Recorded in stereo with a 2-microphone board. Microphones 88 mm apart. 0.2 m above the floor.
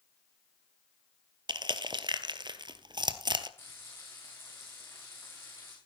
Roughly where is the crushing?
Right.